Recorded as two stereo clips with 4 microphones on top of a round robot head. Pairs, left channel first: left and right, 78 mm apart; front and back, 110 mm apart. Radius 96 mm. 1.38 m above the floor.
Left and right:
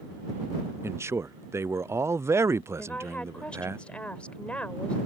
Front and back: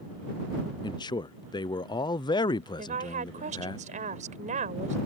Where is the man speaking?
40° right.